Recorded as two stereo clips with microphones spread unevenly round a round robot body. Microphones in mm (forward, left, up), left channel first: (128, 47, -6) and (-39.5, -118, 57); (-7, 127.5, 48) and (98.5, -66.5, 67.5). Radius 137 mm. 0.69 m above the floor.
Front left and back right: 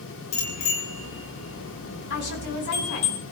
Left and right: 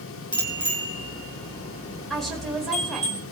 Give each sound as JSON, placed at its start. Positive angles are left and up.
{"t": 0.3, "sound": "a bicycle bell", "azimuth_deg": 50, "distance_m": 8.0}
{"t": 2.1, "sound": "a woman speaking", "azimuth_deg": 30, "distance_m": 5.0}